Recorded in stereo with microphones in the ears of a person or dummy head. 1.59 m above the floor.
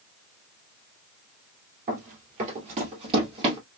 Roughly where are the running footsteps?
Right.